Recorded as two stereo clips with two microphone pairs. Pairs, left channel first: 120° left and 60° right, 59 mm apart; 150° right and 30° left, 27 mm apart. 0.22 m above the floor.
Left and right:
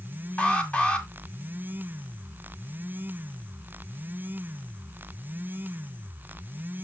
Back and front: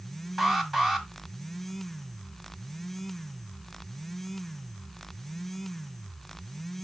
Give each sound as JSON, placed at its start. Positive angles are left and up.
{"t": 0.4, "sound": "an alarm", "azimuth_deg": 85, "distance_m": 1.6}